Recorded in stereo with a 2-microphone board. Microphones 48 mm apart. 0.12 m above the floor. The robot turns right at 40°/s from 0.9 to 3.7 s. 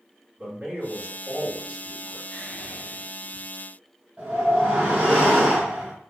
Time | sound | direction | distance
0.4 | a man speaking | 40° right | 2.0 m
2.3 | whispering | 70° left | 1.5 m
4.2 | a whoosh | 20° right (ahead or behind) | 1.4 m